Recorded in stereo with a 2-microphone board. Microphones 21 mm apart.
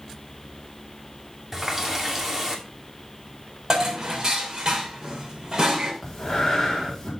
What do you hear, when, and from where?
1.5 s a running tap: 15° right (ahead or behind), 2 m
3.7 s dishes clattering: 35° right (ahead or behind), 3 m
6.0 s breathing: 20° left (ahead or behind), 4.5 m